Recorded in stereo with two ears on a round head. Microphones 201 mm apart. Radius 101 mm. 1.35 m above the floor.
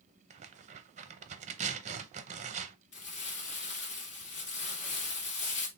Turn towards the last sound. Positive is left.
turn(degrees=50)  # may be behind; listen again after turning